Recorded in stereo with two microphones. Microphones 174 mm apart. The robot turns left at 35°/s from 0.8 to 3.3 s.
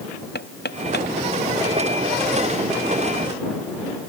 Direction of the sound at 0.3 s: 80° left.